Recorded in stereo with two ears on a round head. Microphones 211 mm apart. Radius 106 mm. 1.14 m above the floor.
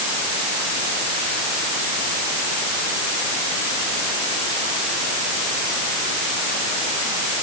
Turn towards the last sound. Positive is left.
No sound to turn to.